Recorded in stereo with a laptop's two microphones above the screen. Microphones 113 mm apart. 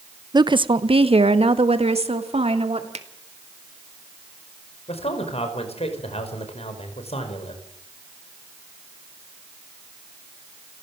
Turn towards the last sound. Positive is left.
turn(degrees=65)  # may be behind; listen again after turning